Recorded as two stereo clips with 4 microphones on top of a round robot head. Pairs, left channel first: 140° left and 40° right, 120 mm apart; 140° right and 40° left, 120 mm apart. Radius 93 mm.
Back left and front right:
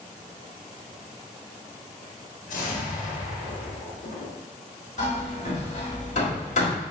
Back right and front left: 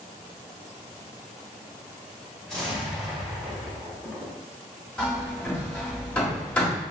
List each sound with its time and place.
2.5 s an explosion: 135° left, 1.4 m
5.0 s hammering: 140° left, 1.8 m